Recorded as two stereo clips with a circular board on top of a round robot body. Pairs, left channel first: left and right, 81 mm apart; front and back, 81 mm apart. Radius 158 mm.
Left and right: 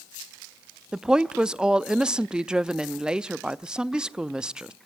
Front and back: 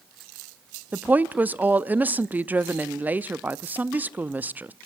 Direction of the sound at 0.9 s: 155° right.